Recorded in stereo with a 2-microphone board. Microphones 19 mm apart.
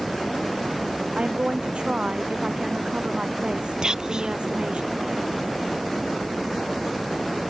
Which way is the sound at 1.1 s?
70° right (ahead or behind).